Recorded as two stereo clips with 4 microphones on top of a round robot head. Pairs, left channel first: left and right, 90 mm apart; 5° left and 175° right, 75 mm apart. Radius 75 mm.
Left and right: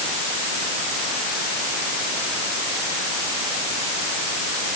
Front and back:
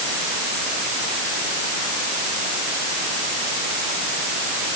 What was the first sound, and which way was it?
Only background noise.